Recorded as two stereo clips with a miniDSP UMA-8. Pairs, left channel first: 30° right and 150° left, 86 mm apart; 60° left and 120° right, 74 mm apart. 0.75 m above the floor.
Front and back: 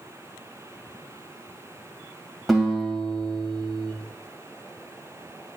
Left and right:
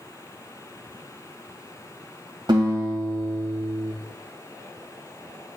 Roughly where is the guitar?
Behind right.